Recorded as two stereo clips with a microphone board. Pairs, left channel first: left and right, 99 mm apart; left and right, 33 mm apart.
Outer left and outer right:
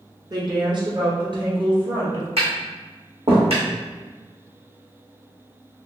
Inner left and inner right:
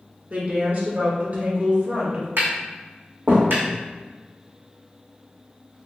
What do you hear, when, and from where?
0.3 s a woman speaking: 45° right (ahead or behind), 1.5 m; by 2.3 s 60° right (ahead or behind), 2.5 m
2.4 s tapping: 80° right, 2.0 m